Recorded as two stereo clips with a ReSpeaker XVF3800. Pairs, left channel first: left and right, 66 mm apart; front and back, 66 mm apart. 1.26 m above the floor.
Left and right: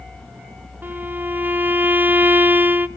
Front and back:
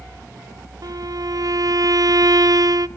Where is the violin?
150° right, 0.5 m.